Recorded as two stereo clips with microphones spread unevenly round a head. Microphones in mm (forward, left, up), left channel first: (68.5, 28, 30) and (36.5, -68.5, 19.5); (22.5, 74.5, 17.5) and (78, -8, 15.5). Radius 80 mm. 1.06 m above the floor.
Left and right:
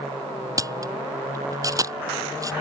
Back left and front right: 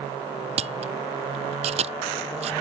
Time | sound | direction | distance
0.6 | a camera shutter | 55° right | ?